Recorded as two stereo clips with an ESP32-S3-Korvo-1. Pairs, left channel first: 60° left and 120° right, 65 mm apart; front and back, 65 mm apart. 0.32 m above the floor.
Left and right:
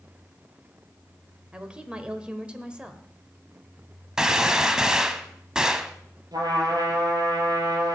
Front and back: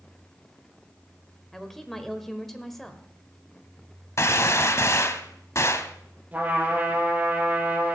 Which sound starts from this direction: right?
A woman speaking, at 1.5 s.